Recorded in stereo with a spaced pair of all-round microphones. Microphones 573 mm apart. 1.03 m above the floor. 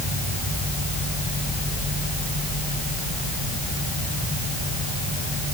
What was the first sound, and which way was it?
Only background noise.